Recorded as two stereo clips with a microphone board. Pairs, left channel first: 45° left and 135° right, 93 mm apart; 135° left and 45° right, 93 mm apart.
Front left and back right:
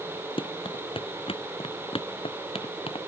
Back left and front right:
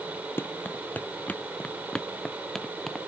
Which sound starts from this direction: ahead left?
Running footsteps, at 0.4 s.